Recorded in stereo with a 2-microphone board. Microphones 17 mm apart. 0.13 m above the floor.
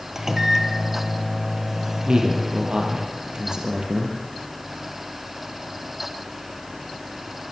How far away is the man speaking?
About 4.5 m.